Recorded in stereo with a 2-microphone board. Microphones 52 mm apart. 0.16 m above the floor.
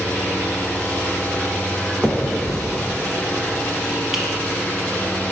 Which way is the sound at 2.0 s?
5° right (ahead or behind).